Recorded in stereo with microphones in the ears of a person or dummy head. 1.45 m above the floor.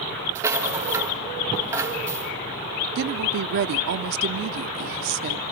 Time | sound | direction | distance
0.3 | a rattle | 15° right (ahead or behind) | 1.7 m
3.0 | a woman speaking | 60° right (ahead or behind) | 0.5 m